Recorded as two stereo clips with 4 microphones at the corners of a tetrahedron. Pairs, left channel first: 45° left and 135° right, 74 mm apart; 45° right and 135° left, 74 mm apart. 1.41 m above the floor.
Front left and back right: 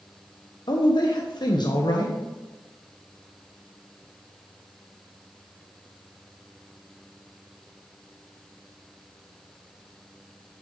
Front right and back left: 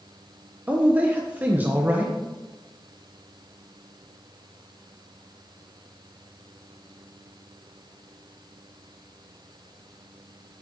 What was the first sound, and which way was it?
A man speaking, 65° left.